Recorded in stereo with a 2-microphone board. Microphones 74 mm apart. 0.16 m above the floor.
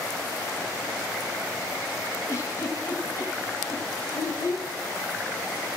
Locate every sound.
2.3 s a giggle: 45° left (ahead or behind), 3 m
4.1 s a child speaking: 55° left (ahead or behind), 2 m